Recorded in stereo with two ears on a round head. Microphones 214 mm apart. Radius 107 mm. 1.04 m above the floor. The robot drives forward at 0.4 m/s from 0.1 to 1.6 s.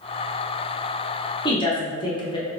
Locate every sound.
1.4 s a woman speaking: 20° left (ahead or behind), 0.7 m